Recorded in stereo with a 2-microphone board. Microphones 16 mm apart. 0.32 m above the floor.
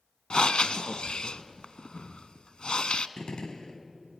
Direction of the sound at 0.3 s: 80° left.